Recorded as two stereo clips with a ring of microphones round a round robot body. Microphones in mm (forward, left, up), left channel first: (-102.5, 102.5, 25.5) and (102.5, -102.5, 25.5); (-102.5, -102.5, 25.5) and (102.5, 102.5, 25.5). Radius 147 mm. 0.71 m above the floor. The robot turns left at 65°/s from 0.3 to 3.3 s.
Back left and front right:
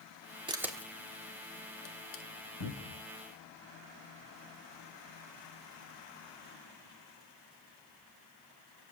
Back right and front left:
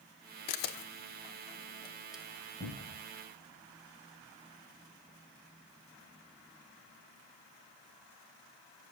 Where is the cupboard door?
160° left, 4 m; by 3.0 s 135° left, 4 m.